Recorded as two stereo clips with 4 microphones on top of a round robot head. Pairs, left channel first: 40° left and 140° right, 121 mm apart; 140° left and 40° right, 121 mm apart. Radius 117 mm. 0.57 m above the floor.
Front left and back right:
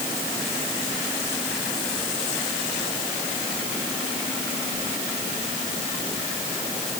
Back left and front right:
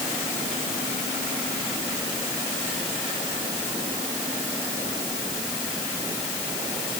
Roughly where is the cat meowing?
No cat meowing in this recording.